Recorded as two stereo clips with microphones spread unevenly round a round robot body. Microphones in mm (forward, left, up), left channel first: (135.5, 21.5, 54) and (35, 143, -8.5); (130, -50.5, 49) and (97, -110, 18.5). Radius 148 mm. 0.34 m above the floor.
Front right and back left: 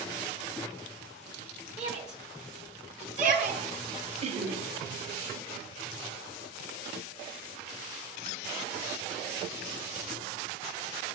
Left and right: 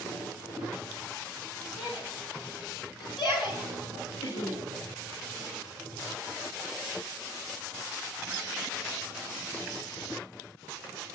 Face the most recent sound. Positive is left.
turn(degrees=115)